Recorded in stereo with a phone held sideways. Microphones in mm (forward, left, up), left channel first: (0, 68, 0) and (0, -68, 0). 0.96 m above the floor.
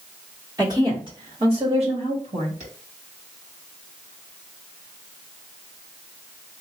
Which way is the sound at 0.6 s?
25° right (ahead or behind).